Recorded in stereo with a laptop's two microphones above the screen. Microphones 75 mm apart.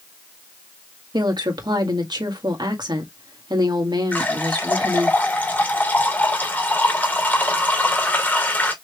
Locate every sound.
1.1 s a woman speaking: 70° right (ahead or behind), 2.0 m
4.1 s a running tap: 25° left (ahead or behind), 2.5 m